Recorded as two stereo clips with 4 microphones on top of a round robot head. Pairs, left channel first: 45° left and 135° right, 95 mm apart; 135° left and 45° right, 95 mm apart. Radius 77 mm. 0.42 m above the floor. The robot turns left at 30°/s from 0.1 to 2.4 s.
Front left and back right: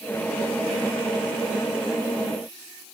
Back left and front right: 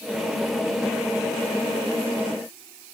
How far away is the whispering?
No whispering in this recording.